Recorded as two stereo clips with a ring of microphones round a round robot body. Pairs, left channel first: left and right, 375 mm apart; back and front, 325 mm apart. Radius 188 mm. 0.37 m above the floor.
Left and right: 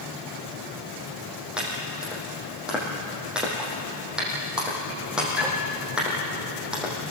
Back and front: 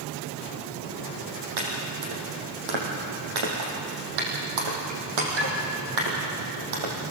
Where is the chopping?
Straight ahead, 5.5 m.